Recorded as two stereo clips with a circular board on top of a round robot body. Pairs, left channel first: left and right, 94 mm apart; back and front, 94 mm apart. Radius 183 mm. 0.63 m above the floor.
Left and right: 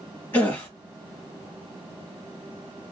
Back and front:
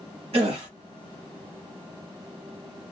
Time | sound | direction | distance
0.3 | a gasp | 20° left | 1.2 m